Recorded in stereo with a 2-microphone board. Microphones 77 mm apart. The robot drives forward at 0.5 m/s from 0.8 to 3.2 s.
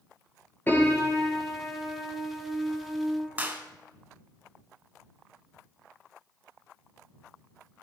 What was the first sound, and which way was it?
A piano, 25° left (ahead or behind).